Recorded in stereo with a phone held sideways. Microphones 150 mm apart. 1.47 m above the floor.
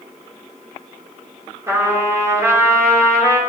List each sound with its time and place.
1.7 s a trumpet: 20° right (ahead or behind), 5 m